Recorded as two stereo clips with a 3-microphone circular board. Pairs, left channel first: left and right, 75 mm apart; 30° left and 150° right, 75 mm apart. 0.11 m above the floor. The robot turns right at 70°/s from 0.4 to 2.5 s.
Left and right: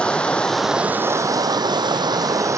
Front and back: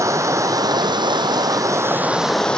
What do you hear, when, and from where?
0.0 s running water: 165° left, 1.3 m; by 2.6 s 50° right, 1.3 m